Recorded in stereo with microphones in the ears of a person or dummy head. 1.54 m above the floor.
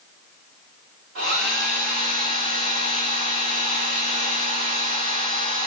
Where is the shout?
No shout in this recording.